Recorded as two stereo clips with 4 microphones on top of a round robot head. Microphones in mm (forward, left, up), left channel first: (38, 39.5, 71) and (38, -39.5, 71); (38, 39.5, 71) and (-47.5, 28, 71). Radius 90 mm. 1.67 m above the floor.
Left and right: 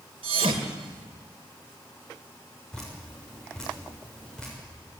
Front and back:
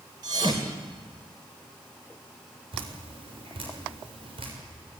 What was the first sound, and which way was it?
A thud, 115° right.